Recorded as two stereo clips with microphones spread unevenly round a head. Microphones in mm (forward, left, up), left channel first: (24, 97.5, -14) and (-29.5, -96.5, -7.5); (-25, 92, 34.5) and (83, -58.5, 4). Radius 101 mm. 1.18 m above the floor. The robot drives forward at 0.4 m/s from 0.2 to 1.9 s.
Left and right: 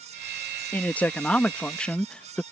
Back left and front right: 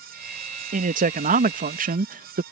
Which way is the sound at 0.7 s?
10° right.